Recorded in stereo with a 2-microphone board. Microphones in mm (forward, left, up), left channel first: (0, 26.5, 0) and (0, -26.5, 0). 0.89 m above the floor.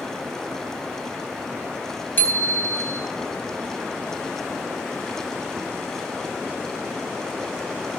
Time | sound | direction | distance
2.2 | a bicycle bell | 40° left (ahead or behind) | 4.5 m